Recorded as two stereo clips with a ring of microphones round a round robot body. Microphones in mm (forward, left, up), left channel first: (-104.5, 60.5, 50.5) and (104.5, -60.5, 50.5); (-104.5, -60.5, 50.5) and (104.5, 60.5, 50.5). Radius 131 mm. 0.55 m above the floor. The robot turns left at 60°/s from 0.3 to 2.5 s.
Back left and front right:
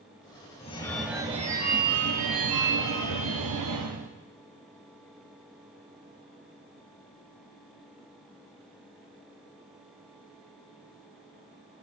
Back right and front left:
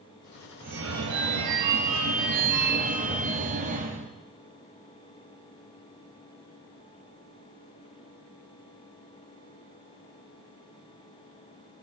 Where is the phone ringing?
85° left, 1.9 m; by 4.1 s 30° right, 1.9 m.